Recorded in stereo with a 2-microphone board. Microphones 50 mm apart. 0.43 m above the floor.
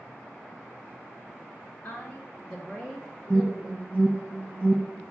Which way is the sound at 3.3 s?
50° right (ahead or behind).